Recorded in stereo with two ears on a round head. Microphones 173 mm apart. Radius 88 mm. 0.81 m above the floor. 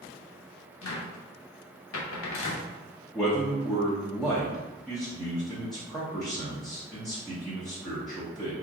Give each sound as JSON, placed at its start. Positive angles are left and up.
{"t": 0.8, "sound": "a cupboard door", "side_deg": 75, "distance_m": 0.8}
{"t": 3.1, "sound": "a man speaking", "side_deg": 0, "distance_m": 0.8}